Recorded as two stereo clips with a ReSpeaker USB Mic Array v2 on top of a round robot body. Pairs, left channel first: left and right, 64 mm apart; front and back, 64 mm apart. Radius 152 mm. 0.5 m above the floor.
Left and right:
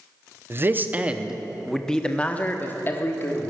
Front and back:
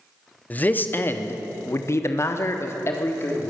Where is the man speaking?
55° right, 1.3 m; by 3.5 s 45° left, 1.9 m.